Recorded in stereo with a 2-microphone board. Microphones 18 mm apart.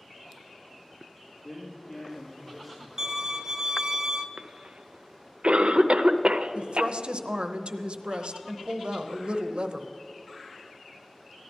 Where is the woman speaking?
65° right (ahead or behind), 0.8 m.